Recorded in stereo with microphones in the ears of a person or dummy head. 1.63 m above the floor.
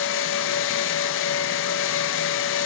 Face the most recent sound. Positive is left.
turn(degrees=65)  # may be behind; listen again after turning